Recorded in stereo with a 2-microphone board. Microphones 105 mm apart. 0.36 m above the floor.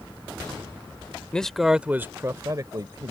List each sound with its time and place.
1.3 s a man speaking: 10° left (ahead or behind); by 3.1 s 45° right (ahead or behind)